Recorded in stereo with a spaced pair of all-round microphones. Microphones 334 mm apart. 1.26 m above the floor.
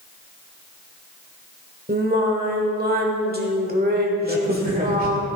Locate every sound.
1.9 s singing: 30° right (ahead or behind), 1.4 m
4.2 s a crack: 25° right (ahead or behind), 2.0 m